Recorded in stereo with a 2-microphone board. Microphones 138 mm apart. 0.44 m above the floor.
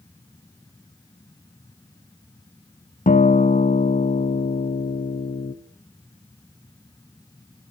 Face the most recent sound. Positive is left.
turn(degrees=70)  # may be behind; listen again after turning